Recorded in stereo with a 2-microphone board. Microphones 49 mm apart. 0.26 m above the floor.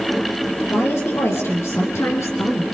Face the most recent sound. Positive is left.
turn(degrees=70)  # may be behind; listen again after turning